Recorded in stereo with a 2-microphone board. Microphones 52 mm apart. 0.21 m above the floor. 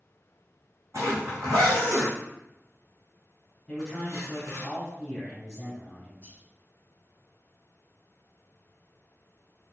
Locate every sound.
0.9 s a zipper: 70° right (ahead or behind), 2 m
3.7 s a man speaking: 10° left (ahead or behind), 1.3 m
6.2 s whispering: 40° right (ahead or behind), 1.9 m